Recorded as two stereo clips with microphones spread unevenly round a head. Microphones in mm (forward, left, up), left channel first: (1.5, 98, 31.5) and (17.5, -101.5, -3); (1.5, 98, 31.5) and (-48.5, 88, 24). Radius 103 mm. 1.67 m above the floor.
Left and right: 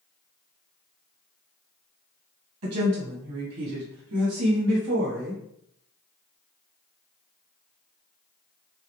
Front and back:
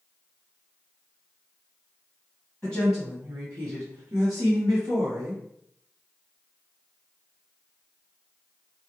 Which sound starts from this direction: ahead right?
A woman speaking, at 2.6 s.